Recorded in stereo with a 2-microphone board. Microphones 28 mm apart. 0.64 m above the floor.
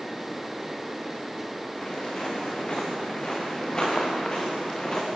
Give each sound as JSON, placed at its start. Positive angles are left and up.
{"t": 1.8, "sound": "footsteps", "side_deg": 30, "distance_m": 6.5}